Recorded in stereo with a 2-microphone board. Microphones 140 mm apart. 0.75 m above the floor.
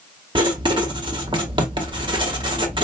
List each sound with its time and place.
0.3 s writing: 35° right (ahead or behind), 0.8 m